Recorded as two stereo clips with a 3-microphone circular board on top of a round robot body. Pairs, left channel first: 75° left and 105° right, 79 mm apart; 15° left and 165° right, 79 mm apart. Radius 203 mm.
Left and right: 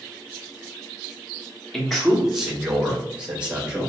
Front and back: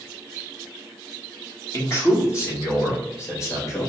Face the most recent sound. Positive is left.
turn(degrees=-30)